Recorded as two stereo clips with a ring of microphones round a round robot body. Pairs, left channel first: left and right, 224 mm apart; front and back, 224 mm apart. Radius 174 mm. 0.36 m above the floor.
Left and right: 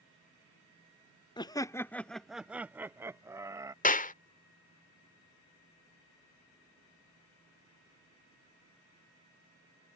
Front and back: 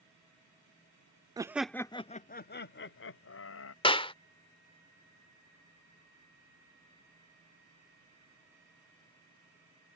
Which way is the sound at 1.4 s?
130° left.